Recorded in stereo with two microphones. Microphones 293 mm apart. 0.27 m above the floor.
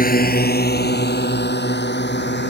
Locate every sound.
0.0 s a drone: 30° left (ahead or behind); by 2.5 s 35° left (ahead or behind)